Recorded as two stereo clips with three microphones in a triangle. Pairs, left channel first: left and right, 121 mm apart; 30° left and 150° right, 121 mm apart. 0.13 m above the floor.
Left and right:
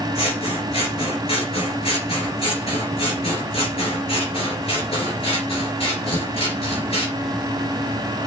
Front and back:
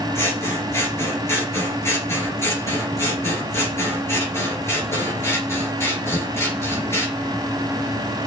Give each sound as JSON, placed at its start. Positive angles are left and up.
{"t": 0.1, "sound": "scissors", "azimuth_deg": 95, "distance_m": 3.0}